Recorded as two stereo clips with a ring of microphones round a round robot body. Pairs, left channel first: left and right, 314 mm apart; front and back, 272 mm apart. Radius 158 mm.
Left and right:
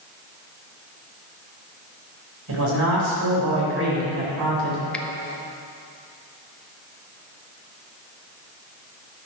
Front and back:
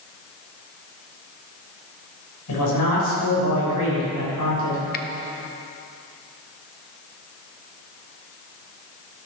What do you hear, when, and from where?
2.5 s a man speaking: 40° right, 4 m
4.9 s a finger snap: 5° left, 0.6 m